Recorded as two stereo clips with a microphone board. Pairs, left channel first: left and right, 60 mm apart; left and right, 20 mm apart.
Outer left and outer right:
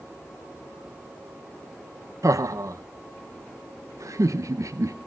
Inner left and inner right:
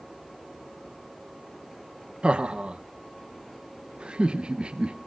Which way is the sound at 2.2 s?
65° right (ahead or behind).